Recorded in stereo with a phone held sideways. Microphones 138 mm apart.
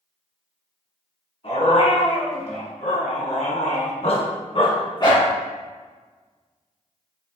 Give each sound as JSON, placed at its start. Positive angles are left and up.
{"t": 1.4, "sound": "a dog barking", "side_deg": 50, "distance_m": 2.5}